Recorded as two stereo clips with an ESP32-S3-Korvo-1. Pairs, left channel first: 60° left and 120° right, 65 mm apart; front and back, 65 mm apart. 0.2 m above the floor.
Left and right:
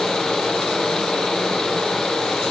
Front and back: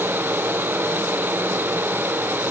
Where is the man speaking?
No man speaking in this recording.